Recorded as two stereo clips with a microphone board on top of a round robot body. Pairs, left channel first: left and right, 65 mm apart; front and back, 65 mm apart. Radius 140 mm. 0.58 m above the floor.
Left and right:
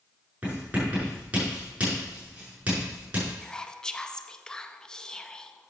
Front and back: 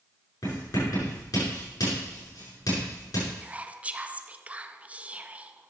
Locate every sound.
0.4 s writing: 20° right, 5.5 m
3.4 s whispering: 150° left, 0.8 m